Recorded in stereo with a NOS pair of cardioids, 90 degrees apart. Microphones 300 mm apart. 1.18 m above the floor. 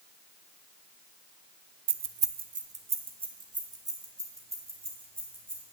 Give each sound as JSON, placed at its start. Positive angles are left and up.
{"t": 1.9, "sound": "keys jangling", "azimuth_deg": -55, "distance_m": 0.6}